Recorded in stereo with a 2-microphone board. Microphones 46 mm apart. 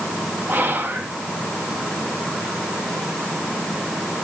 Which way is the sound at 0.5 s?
45° right (ahead or behind).